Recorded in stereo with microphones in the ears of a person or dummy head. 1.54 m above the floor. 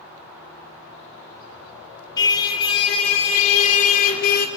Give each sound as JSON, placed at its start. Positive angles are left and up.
{"t": 2.2, "sound": "a car horn", "side_deg": 25, "distance_m": 3.5}